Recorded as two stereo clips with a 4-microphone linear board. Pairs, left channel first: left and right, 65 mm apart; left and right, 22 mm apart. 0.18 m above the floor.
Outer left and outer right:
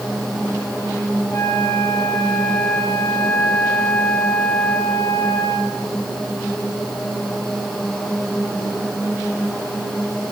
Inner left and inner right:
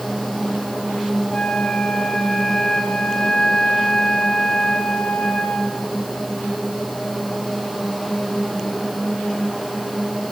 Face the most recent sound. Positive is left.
turn(degrees=50)  # may be behind; listen again after turning